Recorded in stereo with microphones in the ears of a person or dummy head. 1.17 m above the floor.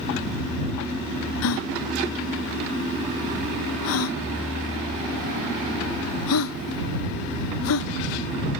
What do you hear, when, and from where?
1.4 s a gasp: 70° left (ahead or behind)